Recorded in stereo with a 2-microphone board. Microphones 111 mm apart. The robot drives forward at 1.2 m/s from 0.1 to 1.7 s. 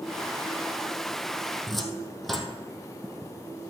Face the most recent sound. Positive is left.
turn(degrees=0)  # may be behind; listen again after turning